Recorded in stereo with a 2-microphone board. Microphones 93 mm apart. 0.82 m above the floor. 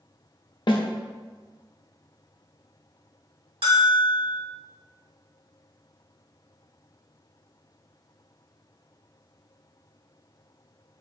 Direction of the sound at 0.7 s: 60° left (ahead or behind).